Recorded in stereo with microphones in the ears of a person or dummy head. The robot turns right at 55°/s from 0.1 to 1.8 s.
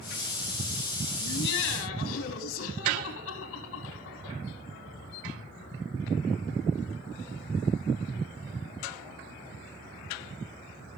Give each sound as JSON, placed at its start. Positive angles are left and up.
{"t": 1.2, "sound": "laughter", "azimuth_deg": 50, "distance_m": 2.5}